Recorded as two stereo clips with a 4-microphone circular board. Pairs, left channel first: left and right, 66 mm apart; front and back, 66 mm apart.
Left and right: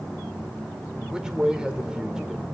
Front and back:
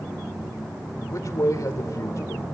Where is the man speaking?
15° right, 1.8 m.